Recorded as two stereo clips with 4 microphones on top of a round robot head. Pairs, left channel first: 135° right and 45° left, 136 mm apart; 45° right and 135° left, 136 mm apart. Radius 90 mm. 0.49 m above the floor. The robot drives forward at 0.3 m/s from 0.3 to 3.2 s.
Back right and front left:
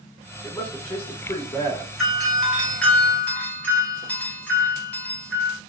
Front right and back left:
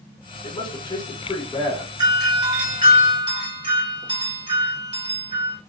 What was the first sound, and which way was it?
A man speaking, 60° right.